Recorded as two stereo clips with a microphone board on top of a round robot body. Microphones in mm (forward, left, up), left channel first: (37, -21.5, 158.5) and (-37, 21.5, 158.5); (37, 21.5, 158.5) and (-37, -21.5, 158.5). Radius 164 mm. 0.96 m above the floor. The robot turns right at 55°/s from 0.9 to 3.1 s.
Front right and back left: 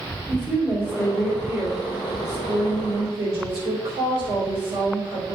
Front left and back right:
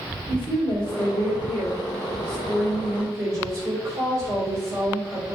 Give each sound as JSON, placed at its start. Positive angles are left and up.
{"t": 0.3, "sound": "a woman speaking", "azimuth_deg": 35, "distance_m": 3.0}